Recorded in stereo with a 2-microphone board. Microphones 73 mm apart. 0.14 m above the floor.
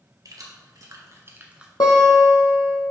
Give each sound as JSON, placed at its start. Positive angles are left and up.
{"t": 0.2, "sound": "keys jangling", "side_deg": -60, "distance_m": 2.0}
{"t": 1.8, "sound": "a guitar", "side_deg": 75, "distance_m": 1.7}